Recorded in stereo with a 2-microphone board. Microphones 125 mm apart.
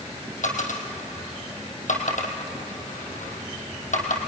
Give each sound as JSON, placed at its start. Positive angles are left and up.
{"t": 0.4, "sound": "a dropped coin", "side_deg": 85, "distance_m": 3.0}